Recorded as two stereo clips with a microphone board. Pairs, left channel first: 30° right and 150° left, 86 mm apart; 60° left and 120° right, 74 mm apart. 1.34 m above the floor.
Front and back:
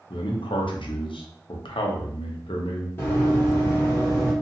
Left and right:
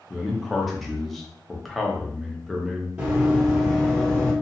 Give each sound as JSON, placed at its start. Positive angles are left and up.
{"t": 0.1, "sound": "a man speaking", "azimuth_deg": -30, "distance_m": 0.7}
{"t": 3.0, "sound": "running footsteps", "azimuth_deg": -60, "distance_m": 1.5}